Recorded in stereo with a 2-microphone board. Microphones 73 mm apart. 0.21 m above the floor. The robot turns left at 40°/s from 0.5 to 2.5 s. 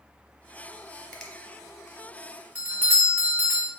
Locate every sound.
1.1 s a finger snap: 15° left (ahead or behind), 0.9 m; by 1.3 s 10° left (ahead or behind), 0.9 m
2.5 s a doorbell: 20° right (ahead or behind), 1.4 m